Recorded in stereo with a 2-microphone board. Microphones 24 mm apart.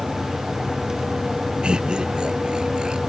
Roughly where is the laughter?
Right.